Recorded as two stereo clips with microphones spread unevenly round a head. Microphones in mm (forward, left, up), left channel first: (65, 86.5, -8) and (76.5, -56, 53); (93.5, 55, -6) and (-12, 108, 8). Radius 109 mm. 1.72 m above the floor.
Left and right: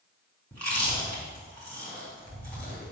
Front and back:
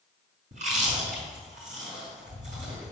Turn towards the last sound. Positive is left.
turn(degrees=-175)